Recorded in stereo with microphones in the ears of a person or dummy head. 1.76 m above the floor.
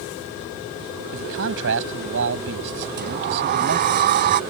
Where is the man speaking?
70° right (ahead or behind); by 4.0 s 55° right (ahead or behind).